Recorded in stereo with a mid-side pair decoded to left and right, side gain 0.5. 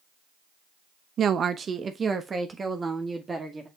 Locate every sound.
1.2 s a woman speaking: 50° right, 0.8 m; by 3.7 s 25° right, 2 m